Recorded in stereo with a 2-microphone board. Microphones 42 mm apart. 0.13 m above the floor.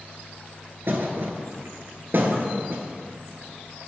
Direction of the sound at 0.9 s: 60° right (ahead or behind).